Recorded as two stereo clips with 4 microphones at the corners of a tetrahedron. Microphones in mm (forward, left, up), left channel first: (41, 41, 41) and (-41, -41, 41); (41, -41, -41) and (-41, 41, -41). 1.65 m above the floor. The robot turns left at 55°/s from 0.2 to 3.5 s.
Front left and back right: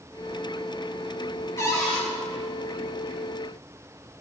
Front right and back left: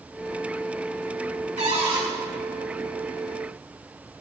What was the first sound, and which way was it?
A cupboard door, 110° left.